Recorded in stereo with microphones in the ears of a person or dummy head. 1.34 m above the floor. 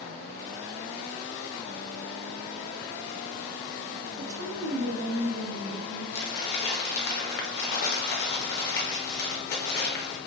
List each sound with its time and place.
4.2 s a woman speaking: 85° right, 1.8 m
6.1 s crumpling: 60° left (ahead or behind), 0.8 m